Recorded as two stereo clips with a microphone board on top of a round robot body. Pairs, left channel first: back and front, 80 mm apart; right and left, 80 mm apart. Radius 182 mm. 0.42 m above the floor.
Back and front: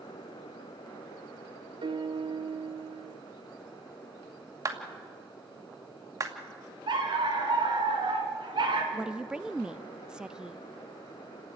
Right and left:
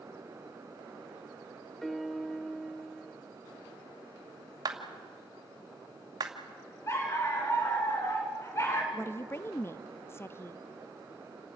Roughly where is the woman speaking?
Right.